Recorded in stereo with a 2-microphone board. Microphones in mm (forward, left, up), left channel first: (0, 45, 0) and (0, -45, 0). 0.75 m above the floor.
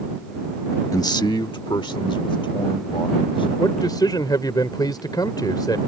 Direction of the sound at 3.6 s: 55° left (ahead or behind).